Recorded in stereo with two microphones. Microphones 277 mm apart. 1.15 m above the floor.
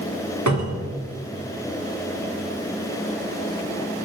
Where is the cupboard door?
85° right, 2.5 m.